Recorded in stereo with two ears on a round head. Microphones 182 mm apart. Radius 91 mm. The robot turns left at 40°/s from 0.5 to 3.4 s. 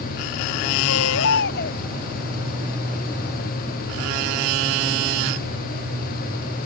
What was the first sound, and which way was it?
A baby crying, 80° left.